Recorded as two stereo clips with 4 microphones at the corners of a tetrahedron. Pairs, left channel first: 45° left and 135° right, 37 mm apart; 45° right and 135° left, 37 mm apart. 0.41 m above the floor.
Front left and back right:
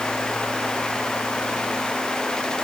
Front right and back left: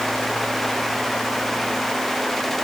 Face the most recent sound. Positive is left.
No sound to turn to.